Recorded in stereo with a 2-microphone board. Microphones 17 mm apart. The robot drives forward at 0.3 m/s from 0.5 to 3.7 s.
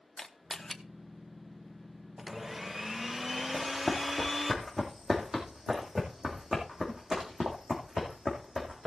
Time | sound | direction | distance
0.2 | a camera shutter | 20° left (ahead or behind) | 0.9 m
2.2 | a blender | 20° right (ahead or behind) | 0.6 m
3.5 | running footsteps | 10° right (ahead or behind) | 3 m